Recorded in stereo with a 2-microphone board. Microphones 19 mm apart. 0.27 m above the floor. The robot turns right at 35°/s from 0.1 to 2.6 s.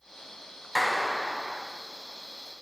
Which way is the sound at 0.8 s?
175° right.